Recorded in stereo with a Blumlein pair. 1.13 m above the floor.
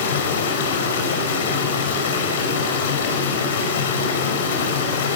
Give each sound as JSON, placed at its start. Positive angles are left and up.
{"t": 0.0, "sound": "running water", "azimuth_deg": 60, "distance_m": 6.0}